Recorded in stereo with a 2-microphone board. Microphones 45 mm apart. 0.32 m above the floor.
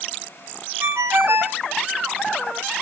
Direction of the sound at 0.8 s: 60° right (ahead or behind).